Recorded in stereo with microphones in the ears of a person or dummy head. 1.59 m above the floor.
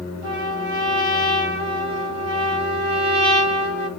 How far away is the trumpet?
About 1.1 m.